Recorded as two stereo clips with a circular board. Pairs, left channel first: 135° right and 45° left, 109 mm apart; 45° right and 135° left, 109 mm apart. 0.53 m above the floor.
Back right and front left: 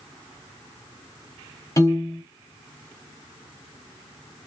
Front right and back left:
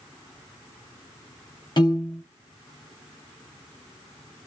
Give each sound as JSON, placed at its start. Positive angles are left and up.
{"t": 1.8, "sound": "a piano", "azimuth_deg": -80, "distance_m": 0.9}